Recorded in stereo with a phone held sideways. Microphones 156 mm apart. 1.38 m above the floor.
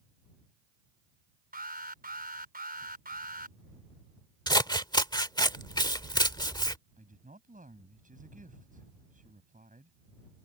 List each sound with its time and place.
1.5 s an alarm: 70° right (ahead or behind)
4.5 s scissors: 25° left (ahead or behind)
7.0 s a woman speaking: 60° right (ahead or behind)